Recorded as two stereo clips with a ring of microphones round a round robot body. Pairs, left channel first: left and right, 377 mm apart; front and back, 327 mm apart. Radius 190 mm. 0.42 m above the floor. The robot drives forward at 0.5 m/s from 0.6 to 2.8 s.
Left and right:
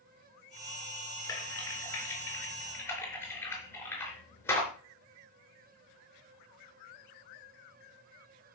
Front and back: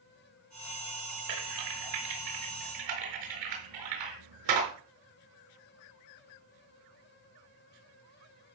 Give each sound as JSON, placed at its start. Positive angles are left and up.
{"t": 1.3, "sound": "typing on a keyboard", "azimuth_deg": 170, "distance_m": 3.5}